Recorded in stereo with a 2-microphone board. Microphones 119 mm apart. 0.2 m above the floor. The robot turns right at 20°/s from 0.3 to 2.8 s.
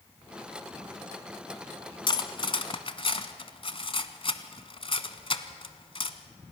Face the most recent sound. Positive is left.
turn(degrees=50)  # may be behind; listen again after turning